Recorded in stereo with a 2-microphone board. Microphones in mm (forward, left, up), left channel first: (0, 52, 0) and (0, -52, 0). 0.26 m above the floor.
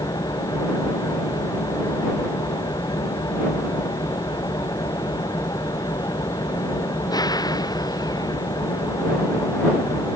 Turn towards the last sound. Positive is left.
turn(degrees=40)  # may be behind; listen again after turning